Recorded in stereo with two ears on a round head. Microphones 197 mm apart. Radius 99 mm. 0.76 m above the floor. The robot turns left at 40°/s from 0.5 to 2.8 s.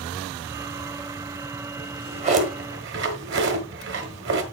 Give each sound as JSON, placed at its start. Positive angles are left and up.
{"t": 1.8, "sound": "a drawer", "side_deg": -15, "distance_m": 1.4}